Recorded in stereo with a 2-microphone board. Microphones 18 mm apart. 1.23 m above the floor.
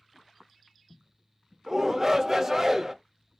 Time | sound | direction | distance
1.7 | a shout | 20° right (ahead or behind) | 0.8 m